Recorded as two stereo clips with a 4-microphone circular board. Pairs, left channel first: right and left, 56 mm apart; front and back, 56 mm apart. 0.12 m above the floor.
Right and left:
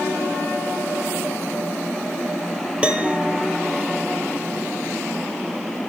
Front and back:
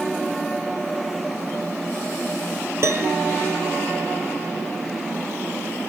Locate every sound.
2.8 s a piano: 155° left, 1.5 m